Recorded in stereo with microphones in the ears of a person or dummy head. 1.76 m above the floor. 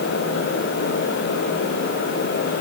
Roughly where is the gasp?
I don't hear a gasp.